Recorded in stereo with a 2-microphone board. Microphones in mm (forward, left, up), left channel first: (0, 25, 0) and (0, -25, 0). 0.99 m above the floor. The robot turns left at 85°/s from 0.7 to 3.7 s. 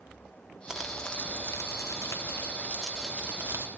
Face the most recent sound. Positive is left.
turn(degrees=-60)